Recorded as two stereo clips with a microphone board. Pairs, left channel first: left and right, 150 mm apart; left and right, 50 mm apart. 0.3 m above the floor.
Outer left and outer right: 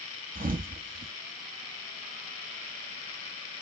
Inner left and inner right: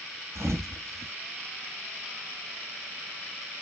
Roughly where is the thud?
Right.